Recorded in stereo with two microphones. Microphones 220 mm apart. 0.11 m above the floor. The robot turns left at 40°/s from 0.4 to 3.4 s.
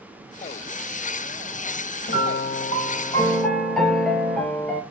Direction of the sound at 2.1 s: 55° left.